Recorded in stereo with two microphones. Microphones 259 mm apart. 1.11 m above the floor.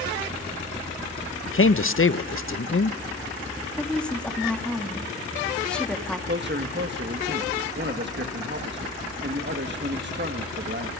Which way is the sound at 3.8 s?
5° left (ahead or behind).